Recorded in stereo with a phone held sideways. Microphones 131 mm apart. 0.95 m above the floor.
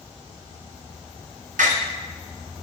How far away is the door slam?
About 1.2 m.